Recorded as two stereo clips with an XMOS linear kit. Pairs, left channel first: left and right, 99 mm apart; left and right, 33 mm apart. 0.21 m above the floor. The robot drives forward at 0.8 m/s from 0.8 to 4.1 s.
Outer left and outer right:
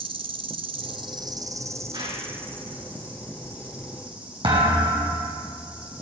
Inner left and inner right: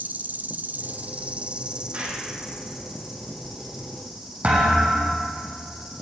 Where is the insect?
60° right (ahead or behind), 0.7 m; by 6.0 s 10° right (ahead or behind), 3 m.